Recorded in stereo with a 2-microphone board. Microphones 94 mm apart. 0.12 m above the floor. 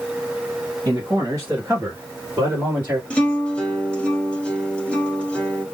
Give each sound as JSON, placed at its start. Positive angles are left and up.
{"t": 0.8, "sound": "a man speaking", "side_deg": -35, "distance_m": 1.6}
{"t": 3.1, "sound": "a guitar", "side_deg": 10, "distance_m": 1.3}